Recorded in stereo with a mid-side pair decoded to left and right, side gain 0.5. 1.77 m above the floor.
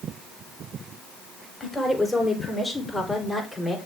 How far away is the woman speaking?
About 6.5 m.